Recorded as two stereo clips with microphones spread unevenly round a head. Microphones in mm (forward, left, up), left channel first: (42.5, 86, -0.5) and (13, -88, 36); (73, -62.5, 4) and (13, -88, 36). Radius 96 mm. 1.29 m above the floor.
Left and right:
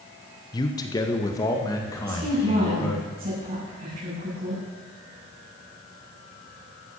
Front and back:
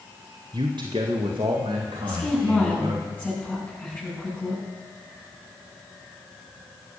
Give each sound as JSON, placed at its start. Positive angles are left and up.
{"t": 0.5, "sound": "a man speaking", "azimuth_deg": 145, "distance_m": 1.2}
{"t": 2.0, "sound": "a woman speaking", "azimuth_deg": -45, "distance_m": 8.5}